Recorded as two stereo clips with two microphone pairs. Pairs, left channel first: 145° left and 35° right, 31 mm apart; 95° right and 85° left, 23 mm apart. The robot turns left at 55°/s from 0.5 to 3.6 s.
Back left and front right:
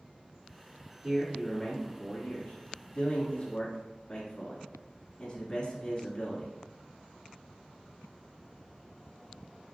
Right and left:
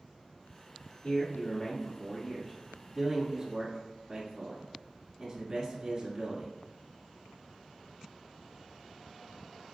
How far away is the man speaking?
About 1.1 m.